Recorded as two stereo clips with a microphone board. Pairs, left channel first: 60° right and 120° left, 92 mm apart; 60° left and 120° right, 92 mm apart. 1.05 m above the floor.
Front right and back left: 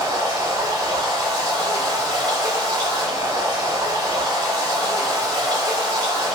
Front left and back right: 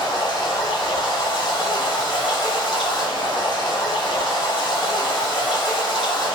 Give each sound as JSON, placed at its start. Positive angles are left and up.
{"t": 0.0, "sound": "running water", "azimuth_deg": 80, "distance_m": 1.8}